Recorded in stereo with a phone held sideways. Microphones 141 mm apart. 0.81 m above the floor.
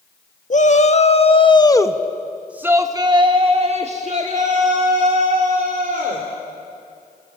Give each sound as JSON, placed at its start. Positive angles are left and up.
{"t": 0.5, "sound": "a shout", "side_deg": 55, "distance_m": 1.6}